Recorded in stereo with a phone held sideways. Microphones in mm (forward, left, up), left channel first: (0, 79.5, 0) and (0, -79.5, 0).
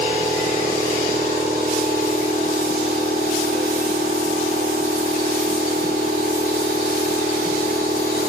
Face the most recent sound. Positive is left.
turn(degrees=-85)